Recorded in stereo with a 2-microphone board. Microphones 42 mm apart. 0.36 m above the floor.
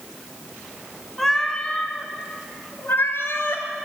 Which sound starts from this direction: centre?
A cat meowing, at 1.2 s.